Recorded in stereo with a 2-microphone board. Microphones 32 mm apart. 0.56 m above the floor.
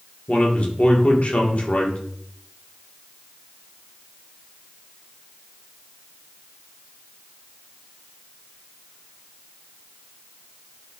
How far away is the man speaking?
About 1.0 m.